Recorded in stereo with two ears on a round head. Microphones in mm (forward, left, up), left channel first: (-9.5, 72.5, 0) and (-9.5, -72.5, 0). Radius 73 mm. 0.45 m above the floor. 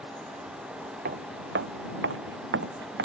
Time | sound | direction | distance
1.1 | footsteps | 60° right (ahead or behind) | ?